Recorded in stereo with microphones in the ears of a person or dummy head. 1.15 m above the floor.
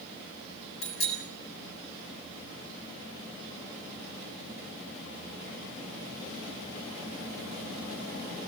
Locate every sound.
0.8 s a bicycle bell: 75° left (ahead or behind), 7 m